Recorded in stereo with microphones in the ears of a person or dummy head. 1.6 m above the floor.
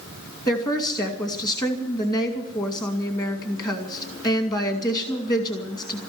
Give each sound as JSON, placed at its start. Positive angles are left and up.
{"t": 0.5, "sound": "a woman speaking", "side_deg": 25, "distance_m": 2.0}